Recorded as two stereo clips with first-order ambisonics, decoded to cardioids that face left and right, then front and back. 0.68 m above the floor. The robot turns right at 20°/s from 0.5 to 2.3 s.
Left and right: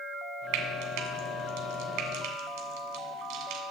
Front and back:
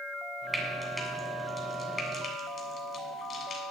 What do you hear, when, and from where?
0.5 s frying: 100° right, 2 m; by 3.6 s 65° right, 2 m